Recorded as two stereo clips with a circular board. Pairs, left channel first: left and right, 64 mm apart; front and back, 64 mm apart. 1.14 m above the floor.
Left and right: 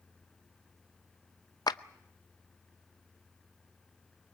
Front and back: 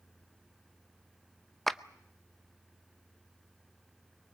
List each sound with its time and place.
1.7 s a clap: 90° left, 0.6 m